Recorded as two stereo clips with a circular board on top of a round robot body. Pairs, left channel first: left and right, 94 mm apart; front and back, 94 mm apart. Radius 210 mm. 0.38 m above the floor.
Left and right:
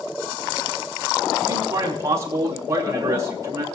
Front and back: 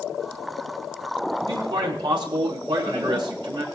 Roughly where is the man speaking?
Behind right.